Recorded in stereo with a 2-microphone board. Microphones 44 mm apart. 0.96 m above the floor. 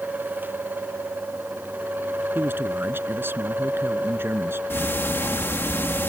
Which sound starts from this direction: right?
A man speaking, at 2.4 s.